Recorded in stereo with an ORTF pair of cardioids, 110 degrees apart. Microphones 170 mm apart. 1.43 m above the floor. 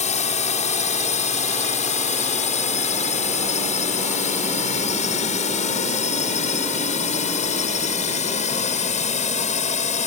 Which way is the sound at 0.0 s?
40° left.